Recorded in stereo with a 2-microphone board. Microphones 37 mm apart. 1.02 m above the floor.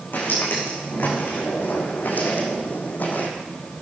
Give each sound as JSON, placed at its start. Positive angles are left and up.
{"t": 0.1, "sound": "footsteps", "side_deg": 60, "distance_m": 5.0}